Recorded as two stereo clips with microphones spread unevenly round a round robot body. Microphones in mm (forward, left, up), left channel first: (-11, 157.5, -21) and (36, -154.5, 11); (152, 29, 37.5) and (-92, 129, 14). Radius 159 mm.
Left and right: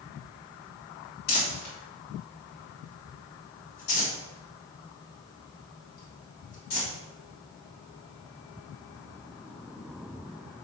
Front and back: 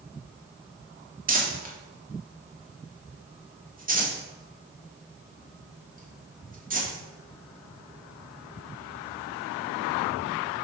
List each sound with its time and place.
1.3 s crumpling: 105° left, 1.8 m